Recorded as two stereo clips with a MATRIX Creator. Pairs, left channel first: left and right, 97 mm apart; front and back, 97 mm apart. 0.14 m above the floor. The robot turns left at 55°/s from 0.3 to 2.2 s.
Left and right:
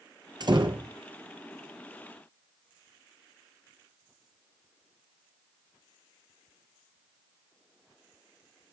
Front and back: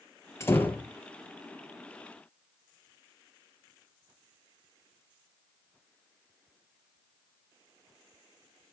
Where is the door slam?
55° right, 2.5 m; by 0.9 s 80° right, 2.5 m.